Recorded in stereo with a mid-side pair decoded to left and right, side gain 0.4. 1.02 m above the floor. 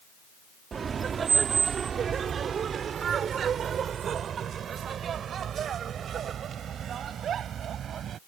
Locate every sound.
0.7 s laughter: 50° right; by 8.2 s 65° right